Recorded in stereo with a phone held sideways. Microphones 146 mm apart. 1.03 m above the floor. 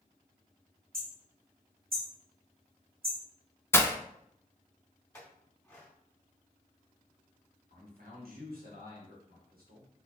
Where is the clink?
15° left (ahead or behind), 2 m.